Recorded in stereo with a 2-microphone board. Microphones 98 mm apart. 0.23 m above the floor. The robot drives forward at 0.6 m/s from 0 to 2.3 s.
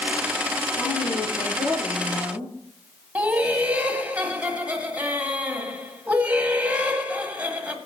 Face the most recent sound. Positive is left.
turn(degrees=-15)  # may be behind; listen again after turning